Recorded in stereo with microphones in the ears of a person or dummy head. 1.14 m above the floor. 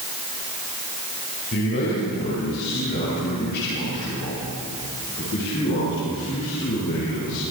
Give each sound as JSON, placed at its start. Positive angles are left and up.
{"t": 1.5, "sound": "a man speaking", "side_deg": 55, "distance_m": 5.5}